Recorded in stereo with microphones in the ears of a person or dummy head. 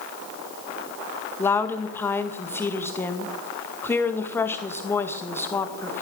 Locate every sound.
1.4 s a woman speaking: 20° left (ahead or behind), 1.9 m